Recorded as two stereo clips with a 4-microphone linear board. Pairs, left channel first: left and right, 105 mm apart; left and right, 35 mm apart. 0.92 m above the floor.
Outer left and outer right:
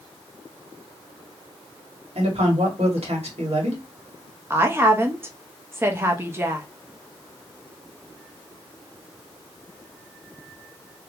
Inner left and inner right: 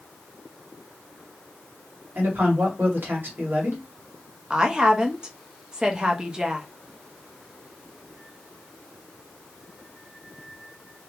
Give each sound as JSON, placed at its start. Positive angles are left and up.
{"t": 2.1, "sound": "a man speaking", "side_deg": -80, "distance_m": 1.7}
{"t": 4.5, "sound": "a woman speaking", "side_deg": -25, "distance_m": 0.8}